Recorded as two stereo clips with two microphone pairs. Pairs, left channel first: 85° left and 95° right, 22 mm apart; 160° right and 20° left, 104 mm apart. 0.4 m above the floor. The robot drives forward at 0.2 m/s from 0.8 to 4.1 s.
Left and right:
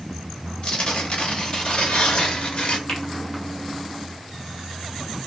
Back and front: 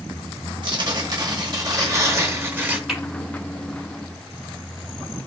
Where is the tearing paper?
50° left, 0.8 m; by 2.8 s 90° left, 0.6 m.